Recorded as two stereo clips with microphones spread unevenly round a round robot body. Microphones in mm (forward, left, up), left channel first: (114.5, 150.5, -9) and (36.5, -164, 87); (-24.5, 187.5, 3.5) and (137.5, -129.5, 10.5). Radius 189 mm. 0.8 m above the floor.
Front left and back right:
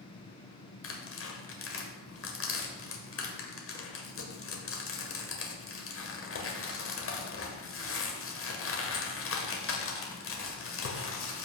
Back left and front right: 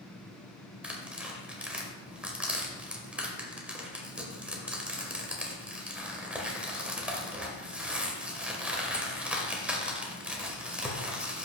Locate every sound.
0.8 s tearing paper: 25° left, 1.8 m